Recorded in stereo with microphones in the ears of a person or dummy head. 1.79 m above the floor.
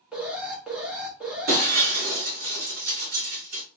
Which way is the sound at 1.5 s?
45° right (ahead or behind).